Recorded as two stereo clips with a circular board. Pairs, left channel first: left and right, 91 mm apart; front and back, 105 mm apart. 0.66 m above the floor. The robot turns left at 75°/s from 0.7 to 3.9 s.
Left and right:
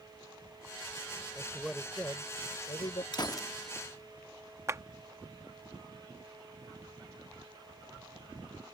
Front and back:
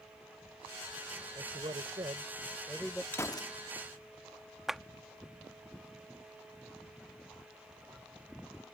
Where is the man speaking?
155° right; by 3.0 s 80° left.